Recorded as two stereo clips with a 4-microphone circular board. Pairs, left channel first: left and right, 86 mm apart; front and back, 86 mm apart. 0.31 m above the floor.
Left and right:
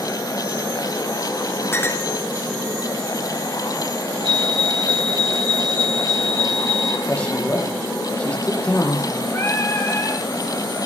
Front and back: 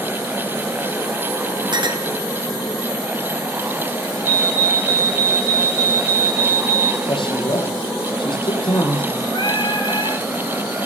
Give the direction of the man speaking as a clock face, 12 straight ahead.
11 o'clock.